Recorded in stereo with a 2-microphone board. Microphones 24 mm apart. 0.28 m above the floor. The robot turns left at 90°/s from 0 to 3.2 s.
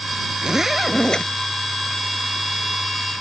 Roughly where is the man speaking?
No man speaking in this recording.